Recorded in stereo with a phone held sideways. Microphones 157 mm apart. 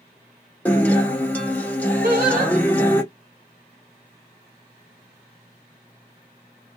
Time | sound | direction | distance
0.7 | a guitar | 10° left (ahead or behind) | 0.9 m
2.0 | singing | 60° right (ahead or behind) | 1.3 m